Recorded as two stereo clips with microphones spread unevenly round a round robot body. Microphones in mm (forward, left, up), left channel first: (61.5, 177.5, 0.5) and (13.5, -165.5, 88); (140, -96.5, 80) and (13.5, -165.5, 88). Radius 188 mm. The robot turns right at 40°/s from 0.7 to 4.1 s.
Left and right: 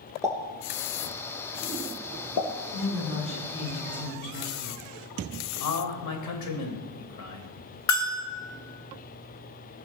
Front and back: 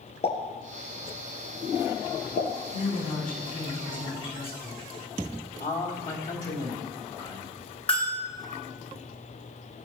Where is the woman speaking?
10° right, 6.5 m; by 4.8 s 45° left, 6.5 m.